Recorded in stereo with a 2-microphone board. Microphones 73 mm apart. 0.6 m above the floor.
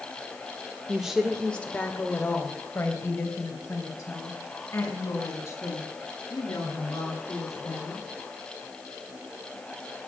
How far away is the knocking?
No knocking in this recording.